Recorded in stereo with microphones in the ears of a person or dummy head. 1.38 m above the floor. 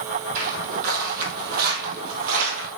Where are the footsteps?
45° right (ahead or behind), 3 m; by 2.7 s 50° right (ahead or behind), 2 m.